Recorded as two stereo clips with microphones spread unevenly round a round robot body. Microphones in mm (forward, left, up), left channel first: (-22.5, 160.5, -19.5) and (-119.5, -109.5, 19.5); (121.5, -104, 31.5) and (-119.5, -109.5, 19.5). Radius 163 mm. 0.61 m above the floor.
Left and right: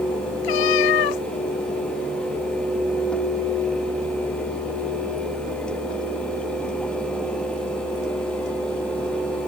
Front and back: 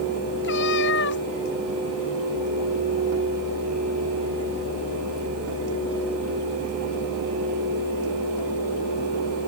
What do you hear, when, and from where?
0.4 s a cat meowing: 60° left